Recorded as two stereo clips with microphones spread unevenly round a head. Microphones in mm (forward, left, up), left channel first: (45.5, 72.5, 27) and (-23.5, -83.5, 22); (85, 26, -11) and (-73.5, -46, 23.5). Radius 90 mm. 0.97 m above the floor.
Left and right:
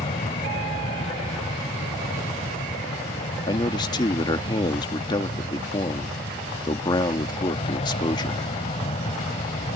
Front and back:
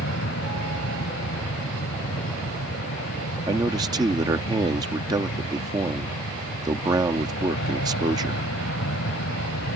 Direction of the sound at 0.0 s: 10° left.